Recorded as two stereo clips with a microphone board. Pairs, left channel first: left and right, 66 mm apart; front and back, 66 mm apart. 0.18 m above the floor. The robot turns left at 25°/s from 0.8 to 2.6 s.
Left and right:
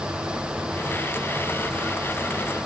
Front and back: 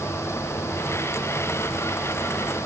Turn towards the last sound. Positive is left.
No sound to turn to.